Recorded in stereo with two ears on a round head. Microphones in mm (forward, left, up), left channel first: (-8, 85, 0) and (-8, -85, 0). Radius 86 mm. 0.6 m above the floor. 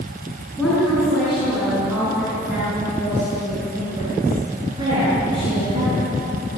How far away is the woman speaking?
About 6.5 m.